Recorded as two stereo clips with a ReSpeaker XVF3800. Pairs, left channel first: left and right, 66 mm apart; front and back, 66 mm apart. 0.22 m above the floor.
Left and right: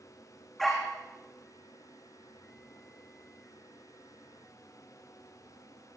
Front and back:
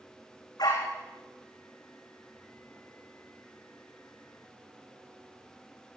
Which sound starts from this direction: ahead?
A dog barking, at 0.6 s.